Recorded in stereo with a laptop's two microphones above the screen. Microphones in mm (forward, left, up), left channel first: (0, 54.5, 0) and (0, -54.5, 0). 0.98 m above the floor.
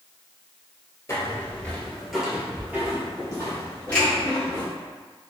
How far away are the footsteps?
About 1.1 m.